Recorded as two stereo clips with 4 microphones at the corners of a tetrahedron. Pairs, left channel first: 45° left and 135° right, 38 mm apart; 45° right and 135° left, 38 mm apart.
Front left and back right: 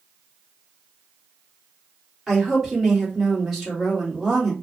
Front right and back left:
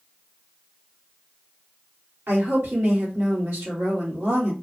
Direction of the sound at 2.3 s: 140° left.